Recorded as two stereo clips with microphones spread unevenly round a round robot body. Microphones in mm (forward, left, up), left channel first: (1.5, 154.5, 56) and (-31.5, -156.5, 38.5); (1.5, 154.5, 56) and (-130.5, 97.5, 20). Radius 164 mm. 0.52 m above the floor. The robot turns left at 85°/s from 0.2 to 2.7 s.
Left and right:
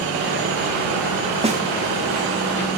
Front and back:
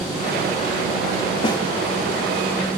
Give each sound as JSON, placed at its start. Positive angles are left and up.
{"t": 1.4, "sound": "a snare drum", "azimuth_deg": -40}